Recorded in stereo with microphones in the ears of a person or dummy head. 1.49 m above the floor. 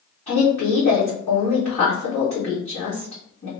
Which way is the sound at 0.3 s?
35° left (ahead or behind).